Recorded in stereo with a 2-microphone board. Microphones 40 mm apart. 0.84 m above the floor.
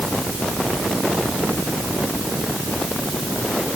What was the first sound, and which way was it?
Only background noise.